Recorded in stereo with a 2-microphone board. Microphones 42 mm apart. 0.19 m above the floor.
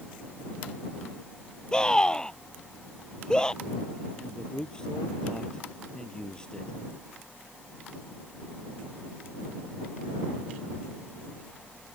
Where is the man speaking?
20° left (ahead or behind).